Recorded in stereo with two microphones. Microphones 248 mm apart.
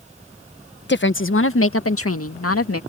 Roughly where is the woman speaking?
Left.